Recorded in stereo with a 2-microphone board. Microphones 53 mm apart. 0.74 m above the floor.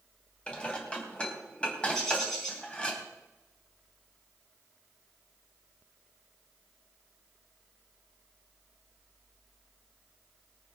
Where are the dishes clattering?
20° left (ahead or behind), 3.5 m.